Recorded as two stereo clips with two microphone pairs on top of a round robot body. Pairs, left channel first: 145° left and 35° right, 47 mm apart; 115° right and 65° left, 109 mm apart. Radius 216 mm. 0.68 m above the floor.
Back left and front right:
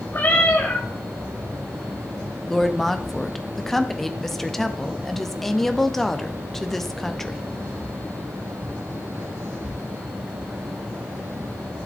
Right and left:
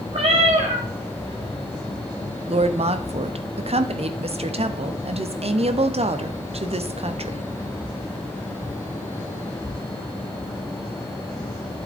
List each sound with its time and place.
0.1 s a cat meowing: 95° left, 2.0 m
2.5 s a woman speaking: 65° left, 1.2 m